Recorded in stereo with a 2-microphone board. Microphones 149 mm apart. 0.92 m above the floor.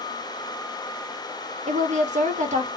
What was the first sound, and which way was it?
A woman speaking, 55° right (ahead or behind).